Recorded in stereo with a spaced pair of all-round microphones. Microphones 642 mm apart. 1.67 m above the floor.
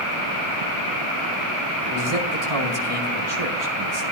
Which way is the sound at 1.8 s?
75° right (ahead or behind).